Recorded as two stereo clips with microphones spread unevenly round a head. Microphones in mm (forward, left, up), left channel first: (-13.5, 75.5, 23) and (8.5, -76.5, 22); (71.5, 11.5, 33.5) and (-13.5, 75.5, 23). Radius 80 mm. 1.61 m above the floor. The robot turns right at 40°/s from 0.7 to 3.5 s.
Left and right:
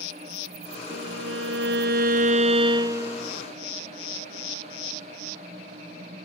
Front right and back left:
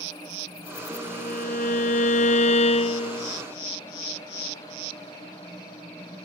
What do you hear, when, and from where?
0.9 s a violin: 90° right; by 3.3 s 5° left